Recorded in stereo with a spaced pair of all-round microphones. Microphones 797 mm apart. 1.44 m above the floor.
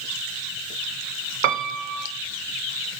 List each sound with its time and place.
1.4 s a piano: 75° right (ahead or behind), 0.8 m